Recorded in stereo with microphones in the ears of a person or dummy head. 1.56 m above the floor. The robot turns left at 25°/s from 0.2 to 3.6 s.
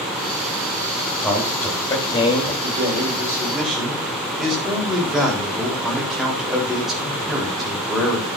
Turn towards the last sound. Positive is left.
turn(degrees=5)  # may be behind; listen again after turning